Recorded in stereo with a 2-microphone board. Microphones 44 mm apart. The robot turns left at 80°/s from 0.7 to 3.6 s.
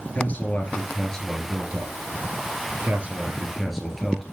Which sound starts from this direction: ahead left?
A man speaking, at 0.1 s.